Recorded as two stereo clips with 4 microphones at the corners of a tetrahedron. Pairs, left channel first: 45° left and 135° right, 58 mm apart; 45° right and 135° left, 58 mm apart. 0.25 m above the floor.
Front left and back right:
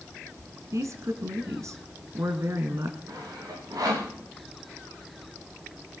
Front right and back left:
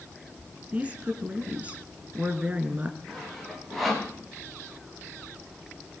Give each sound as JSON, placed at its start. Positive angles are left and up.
{"t": 0.7, "sound": "a woman speaking", "azimuth_deg": -160, "distance_m": 3.0}
{"t": 3.1, "sound": "sawing", "azimuth_deg": -135, "distance_m": 7.0}